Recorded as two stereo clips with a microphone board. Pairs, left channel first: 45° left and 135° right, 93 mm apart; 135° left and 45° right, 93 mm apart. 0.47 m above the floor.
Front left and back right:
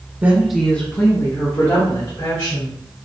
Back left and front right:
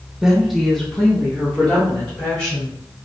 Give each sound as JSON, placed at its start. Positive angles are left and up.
{"t": 0.2, "sound": "a woman speaking", "azimuth_deg": -120, "distance_m": 0.8}